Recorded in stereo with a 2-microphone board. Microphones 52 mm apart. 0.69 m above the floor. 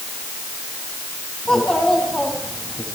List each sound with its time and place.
1.4 s a child speaking: 15° left (ahead or behind), 4.5 m